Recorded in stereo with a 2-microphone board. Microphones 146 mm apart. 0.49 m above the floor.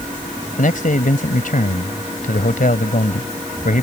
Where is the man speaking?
70° left (ahead or behind).